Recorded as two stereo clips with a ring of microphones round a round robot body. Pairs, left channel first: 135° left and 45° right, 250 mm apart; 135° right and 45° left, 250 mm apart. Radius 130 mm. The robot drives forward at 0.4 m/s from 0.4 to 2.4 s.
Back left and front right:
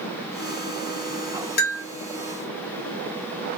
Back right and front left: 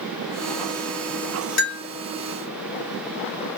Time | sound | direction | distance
1.6 | a bell | 170° right | 1.0 m